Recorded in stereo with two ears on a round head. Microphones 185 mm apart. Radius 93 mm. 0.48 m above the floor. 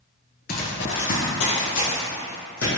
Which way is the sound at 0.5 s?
45° left (ahead or behind).